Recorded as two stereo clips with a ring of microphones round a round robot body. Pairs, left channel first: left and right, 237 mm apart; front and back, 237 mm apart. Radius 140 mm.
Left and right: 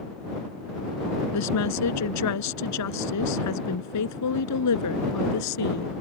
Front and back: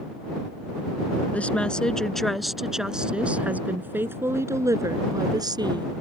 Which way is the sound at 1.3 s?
85° left.